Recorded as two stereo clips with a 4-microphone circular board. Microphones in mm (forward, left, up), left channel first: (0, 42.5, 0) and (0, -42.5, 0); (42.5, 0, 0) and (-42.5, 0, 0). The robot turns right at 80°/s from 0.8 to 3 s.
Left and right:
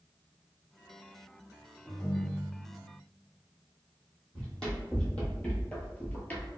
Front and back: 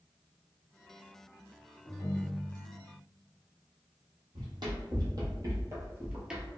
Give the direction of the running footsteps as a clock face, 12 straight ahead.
6 o'clock.